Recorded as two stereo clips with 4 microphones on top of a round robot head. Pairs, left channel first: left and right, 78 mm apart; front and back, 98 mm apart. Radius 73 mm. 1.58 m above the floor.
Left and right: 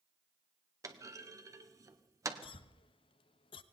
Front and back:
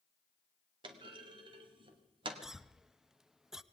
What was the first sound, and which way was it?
A clunk, 135° right.